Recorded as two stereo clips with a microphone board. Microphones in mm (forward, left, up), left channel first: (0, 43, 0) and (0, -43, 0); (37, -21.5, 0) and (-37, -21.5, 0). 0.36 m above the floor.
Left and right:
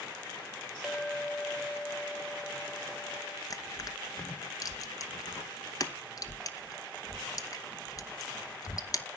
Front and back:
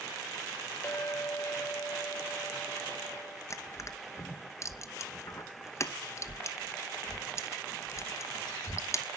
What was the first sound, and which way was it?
A clink, 5° right.